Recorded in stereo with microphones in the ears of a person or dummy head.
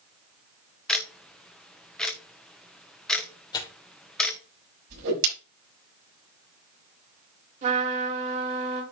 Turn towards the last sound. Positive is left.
turn(degrees=-40)  # may be behind; listen again after turning